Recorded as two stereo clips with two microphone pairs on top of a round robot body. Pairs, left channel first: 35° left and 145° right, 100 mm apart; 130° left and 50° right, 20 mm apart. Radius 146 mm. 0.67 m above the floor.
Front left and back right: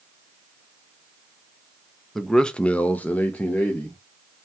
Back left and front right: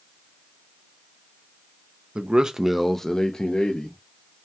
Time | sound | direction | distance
2.1 | a man speaking | 35° right | 0.6 m